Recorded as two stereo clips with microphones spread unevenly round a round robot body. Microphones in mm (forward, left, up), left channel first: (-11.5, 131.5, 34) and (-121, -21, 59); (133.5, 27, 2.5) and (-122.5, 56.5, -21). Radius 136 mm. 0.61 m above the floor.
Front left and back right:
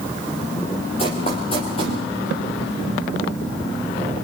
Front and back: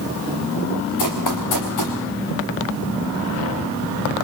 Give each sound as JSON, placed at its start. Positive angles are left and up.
{"t": 1.0, "sound": "running footsteps", "azimuth_deg": -15, "distance_m": 3.5}